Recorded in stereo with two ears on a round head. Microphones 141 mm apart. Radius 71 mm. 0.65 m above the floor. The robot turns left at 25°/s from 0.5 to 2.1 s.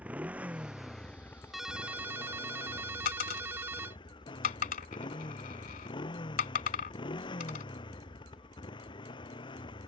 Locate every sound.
0.0 s a motorcycle: 170° right; by 9.9 s 150° left
1.5 s a ringtone: centre (ahead or behind); by 4.0 s 15° right (ahead or behind)
3.0 s a dropped coin: 55° left (ahead or behind)